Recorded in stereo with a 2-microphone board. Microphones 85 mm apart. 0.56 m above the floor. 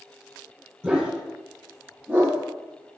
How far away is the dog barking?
About 9 m.